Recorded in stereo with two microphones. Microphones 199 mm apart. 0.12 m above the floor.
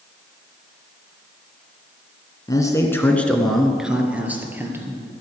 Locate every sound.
2.5 s a man speaking: 20° left (ahead or behind), 1.2 m; by 5.0 s 10° right (ahead or behind), 2.5 m